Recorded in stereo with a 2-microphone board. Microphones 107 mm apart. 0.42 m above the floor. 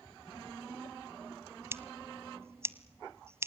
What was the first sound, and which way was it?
Scissors, 25° right (ahead or behind).